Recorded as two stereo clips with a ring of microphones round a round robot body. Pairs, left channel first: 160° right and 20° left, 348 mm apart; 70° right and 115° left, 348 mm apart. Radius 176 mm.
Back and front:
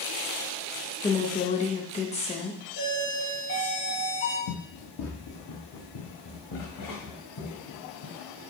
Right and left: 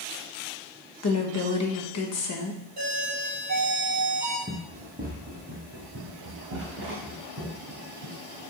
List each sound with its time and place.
1.0 s a woman speaking: 90° right, 1.2 m
2.8 s a doorbell: 160° left, 3.5 m
4.5 s running footsteps: 175° right, 1.2 m; by 8.2 s 165° left, 4 m